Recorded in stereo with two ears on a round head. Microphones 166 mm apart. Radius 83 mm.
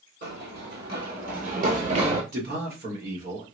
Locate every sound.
0.2 s running footsteps: 60° right (ahead or behind), 1.9 m; by 2.2 s 30° right (ahead or behind), 1.1 m
2.3 s a man speaking: 50° right (ahead or behind), 1.2 m